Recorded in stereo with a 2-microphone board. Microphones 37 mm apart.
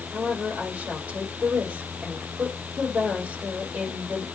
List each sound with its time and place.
0.1 s a woman speaking: 50° right (ahead or behind), 5 m